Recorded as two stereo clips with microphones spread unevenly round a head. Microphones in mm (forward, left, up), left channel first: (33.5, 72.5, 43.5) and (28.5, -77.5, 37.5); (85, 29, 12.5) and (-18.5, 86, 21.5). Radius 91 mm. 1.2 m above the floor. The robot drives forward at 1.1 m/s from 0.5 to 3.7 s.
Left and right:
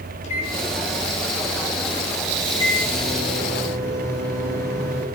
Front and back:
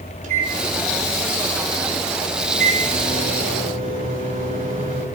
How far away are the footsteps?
No footsteps in this recording.